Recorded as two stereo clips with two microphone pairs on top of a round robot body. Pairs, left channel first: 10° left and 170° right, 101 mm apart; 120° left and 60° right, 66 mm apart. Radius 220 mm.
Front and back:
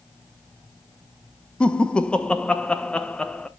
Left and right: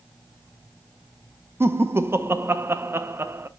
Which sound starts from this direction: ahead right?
Laughter, at 1.6 s.